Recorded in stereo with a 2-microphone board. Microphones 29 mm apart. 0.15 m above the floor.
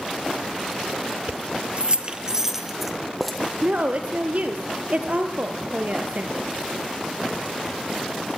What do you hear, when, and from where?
1.3 s keys jangling: 60° right (ahead or behind), 1.8 m; by 3.4 s centre (ahead or behind), 3 m
3.6 s a woman speaking: 55° right (ahead or behind), 3 m